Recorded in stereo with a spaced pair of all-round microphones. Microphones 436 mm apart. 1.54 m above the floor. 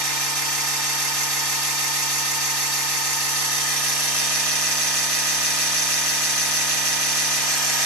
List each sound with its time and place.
0.0 s a machine running: 60° right (ahead or behind), 2.0 m